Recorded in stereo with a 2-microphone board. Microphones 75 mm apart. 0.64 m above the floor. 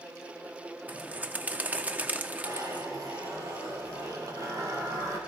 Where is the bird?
20° right (ahead or behind), 0.7 m.